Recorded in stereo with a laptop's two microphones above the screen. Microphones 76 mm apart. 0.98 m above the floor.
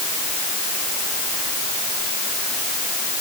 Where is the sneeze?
No sneeze in this recording.